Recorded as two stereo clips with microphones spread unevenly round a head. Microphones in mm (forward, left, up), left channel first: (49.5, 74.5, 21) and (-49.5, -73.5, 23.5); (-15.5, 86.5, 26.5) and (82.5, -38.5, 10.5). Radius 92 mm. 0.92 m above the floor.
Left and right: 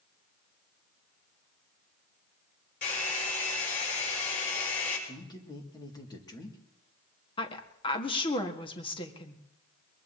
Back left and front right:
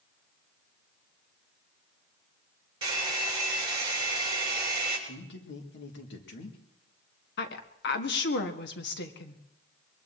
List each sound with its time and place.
2.8 s a hair dryer: 10° left, 5.5 m
5.1 s a man speaking: 125° left, 2 m
7.4 s a woman speaking: 120° left, 1.6 m